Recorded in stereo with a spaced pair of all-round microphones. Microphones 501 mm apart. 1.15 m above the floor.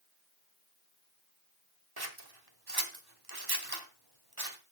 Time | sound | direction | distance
2.0 | scissors | 45° right (ahead or behind) | 1.6 m